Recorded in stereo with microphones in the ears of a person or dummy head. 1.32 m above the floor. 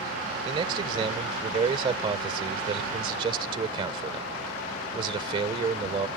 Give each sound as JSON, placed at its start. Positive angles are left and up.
{"t": 0.5, "sound": "a man speaking", "side_deg": -25}